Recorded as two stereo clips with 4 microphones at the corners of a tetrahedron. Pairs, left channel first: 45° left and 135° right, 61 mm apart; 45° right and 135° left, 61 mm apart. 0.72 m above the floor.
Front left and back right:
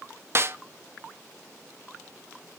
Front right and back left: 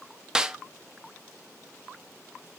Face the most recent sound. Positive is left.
turn(degrees=-155)